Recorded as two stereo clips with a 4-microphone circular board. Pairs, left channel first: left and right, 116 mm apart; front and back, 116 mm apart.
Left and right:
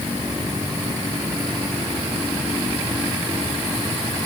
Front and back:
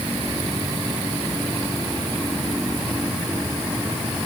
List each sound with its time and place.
Only background noise.